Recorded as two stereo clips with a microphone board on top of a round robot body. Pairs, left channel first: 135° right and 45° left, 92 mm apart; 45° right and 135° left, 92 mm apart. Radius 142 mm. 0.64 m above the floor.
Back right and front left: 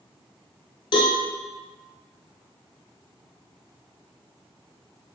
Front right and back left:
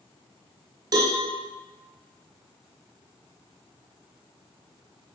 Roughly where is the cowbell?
Behind.